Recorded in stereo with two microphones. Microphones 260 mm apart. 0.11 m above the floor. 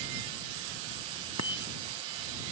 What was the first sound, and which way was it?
A bicycle bell, 85° right.